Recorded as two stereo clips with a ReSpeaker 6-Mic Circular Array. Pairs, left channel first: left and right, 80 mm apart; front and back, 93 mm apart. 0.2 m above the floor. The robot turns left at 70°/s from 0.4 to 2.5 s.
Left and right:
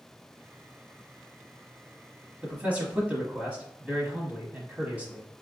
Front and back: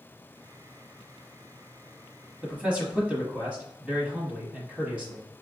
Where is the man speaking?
120° right, 1.0 m; by 5.3 s 125° right, 1.0 m.